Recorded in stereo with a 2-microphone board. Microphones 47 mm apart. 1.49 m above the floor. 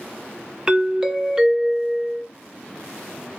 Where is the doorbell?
10° right (ahead or behind), 0.6 m.